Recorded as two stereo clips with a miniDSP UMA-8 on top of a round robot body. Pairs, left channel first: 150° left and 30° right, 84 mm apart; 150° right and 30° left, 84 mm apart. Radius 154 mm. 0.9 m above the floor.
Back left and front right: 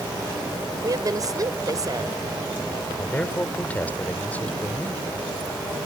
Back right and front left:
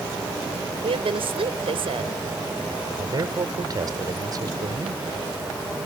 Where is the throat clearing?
I don't hear throat clearing.